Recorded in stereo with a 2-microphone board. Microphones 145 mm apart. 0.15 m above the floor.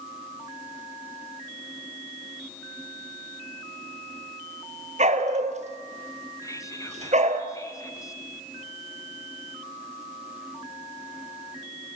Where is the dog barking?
50° right (ahead or behind), 1.4 m.